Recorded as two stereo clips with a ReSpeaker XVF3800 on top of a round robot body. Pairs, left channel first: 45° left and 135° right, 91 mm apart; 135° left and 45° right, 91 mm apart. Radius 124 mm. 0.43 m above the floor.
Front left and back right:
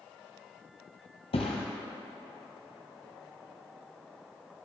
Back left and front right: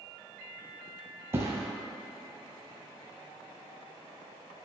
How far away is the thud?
About 0.8 m.